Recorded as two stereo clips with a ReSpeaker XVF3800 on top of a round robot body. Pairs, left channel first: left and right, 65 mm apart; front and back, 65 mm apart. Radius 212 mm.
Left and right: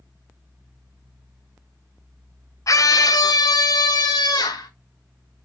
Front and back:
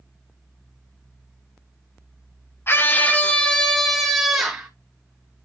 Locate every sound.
2.7 s a scream: 50° left, 1.3 m; by 4.7 s 95° left, 2 m